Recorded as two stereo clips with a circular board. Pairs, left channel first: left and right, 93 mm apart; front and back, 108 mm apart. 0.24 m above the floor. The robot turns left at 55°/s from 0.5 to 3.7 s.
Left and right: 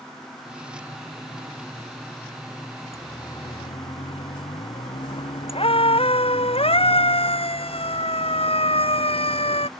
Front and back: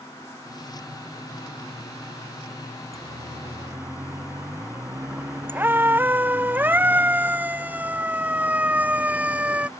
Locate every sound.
2.9 s a siren: 150° left; by 9.7 s 100° left